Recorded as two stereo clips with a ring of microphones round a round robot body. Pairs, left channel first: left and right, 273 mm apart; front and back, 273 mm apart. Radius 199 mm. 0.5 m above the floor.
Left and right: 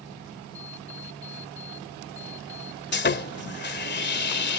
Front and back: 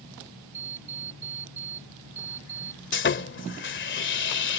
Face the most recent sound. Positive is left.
turn(degrees=45)